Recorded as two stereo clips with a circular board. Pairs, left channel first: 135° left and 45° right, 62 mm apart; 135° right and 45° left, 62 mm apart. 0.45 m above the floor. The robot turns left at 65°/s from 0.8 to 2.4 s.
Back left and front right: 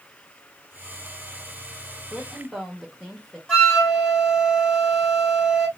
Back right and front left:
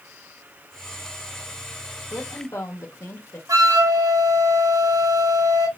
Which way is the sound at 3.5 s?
60° left.